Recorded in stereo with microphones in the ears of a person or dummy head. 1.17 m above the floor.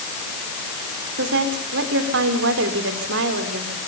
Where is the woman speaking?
60° right (ahead or behind), 3.5 m.